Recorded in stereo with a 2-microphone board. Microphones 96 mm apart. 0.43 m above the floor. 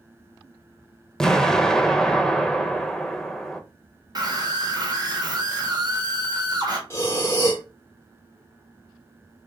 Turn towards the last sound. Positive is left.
turn(degrees=30)  # may be behind; listen again after turning